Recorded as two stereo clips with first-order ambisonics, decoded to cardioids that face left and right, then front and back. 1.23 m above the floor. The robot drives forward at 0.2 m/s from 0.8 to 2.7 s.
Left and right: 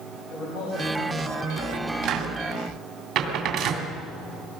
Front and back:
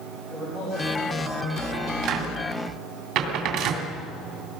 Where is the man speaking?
95° left, 7 m; by 1.9 s 100° left, 7 m.